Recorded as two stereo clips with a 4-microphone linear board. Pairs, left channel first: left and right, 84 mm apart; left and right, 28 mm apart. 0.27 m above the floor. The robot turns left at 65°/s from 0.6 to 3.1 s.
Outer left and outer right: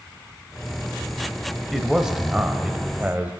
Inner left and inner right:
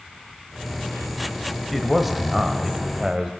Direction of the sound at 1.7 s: Centre (ahead or behind).